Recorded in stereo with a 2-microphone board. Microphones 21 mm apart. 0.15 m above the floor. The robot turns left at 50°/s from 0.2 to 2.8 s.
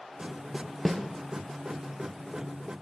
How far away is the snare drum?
About 0.8 m.